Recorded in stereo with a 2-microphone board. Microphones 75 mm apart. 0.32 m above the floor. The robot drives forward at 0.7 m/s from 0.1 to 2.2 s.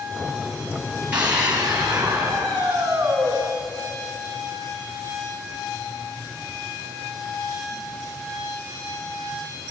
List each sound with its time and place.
1.1 s a scream: 20° right (ahead or behind), 2 m; by 3.3 s 15° right (ahead or behind), 3 m